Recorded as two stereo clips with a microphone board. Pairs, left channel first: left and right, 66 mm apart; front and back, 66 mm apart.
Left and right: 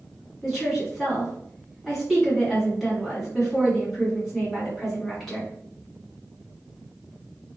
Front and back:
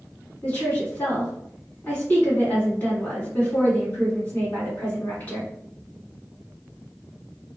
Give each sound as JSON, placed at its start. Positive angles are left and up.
{"t": 0.4, "sound": "a woman speaking", "azimuth_deg": 0, "distance_m": 1.7}